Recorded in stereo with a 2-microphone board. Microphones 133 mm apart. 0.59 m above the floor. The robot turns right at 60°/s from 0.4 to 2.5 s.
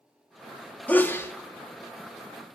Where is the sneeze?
10° left (ahead or behind), 0.6 m; by 1.3 s 20° left (ahead or behind), 0.6 m.